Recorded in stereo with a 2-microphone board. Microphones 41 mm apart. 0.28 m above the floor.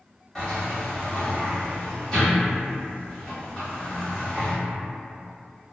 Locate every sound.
0.3 s a sliding door: 15° left (ahead or behind), 1.2 m